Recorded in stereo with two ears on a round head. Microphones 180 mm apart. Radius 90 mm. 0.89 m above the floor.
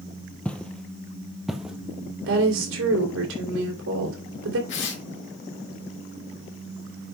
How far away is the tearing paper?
About 2 m.